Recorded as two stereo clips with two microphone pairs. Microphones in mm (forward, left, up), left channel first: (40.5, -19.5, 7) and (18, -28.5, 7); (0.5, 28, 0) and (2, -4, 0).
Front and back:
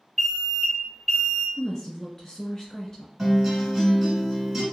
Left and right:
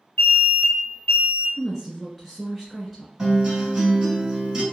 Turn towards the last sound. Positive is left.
turn(degrees=-110)